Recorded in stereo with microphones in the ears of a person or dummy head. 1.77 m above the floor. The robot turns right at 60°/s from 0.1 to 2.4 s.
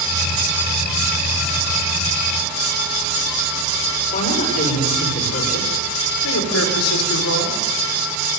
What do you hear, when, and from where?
4.1 s a woman speaking: 45° left (ahead or behind), 7 m
6.2 s a man speaking: 80° left, 6 m